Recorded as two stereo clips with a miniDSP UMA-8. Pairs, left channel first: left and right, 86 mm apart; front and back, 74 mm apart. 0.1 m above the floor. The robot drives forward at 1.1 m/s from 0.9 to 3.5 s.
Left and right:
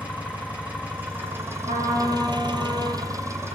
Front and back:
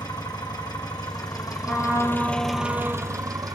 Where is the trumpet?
85° right, 8 m; by 3.1 s 95° right, 8 m.